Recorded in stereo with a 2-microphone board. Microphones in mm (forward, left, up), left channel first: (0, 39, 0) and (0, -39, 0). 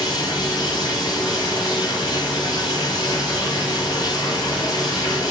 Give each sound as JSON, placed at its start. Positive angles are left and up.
{"t": 0.0, "sound": "running water", "side_deg": 50, "distance_m": 8.5}